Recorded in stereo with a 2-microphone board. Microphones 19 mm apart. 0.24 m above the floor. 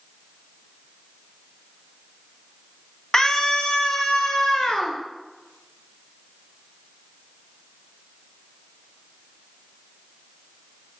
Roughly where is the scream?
Left.